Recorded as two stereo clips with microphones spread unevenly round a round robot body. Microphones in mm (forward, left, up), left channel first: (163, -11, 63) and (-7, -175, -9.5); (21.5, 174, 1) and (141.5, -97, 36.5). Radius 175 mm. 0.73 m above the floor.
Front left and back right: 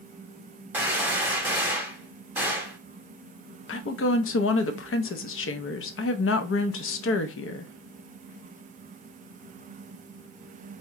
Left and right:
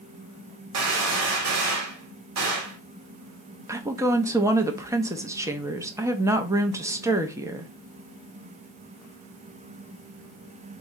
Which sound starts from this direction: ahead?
A woman speaking, at 3.7 s.